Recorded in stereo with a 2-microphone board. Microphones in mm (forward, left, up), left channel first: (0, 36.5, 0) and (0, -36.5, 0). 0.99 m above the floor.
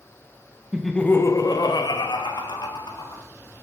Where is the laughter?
10° right (ahead or behind), 0.5 m; by 3.2 s 85° left, 1.9 m.